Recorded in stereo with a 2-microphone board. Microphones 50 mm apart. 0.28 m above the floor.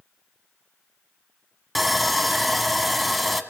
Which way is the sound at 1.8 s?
Centre (ahead or behind).